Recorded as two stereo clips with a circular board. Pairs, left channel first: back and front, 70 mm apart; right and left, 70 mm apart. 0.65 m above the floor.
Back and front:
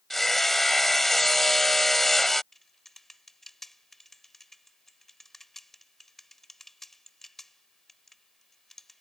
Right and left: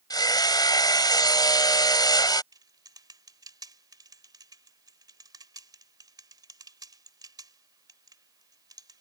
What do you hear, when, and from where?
0.1 s hammering: 95° right
2.5 s typing on a keyboard: 95° left